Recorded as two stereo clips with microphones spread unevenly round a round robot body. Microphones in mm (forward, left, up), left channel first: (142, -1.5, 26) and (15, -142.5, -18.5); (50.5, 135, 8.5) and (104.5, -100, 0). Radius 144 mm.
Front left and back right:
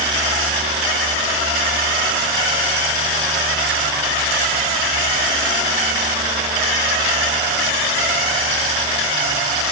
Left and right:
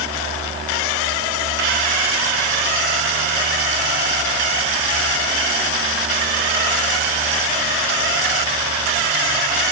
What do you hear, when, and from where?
Only background noise.